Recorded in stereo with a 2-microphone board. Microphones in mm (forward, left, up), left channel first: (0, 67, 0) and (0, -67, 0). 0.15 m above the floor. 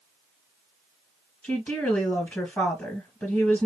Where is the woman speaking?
15° left (ahead or behind), 2.5 m.